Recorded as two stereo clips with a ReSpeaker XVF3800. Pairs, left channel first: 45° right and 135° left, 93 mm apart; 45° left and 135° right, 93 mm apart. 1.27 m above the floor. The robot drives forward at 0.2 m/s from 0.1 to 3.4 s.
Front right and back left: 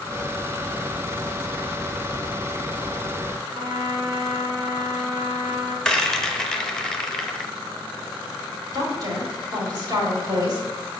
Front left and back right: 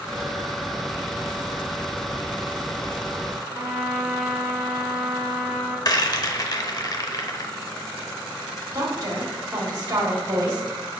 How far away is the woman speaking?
About 1.9 m.